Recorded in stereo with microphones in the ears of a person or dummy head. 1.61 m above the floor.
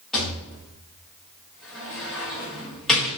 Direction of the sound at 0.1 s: 5° left (ahead or behind).